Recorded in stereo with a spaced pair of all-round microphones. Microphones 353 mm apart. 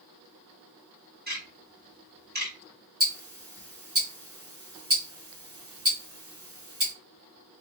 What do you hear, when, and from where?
1.3 s ticking: 25° right (ahead or behind), 1.2 m
3.0 s ticking: 40° right (ahead or behind), 1.4 m